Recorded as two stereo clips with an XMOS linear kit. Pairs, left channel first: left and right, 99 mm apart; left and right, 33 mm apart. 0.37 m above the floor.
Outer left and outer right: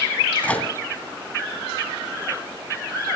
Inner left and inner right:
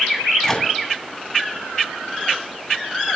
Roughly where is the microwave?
Centre.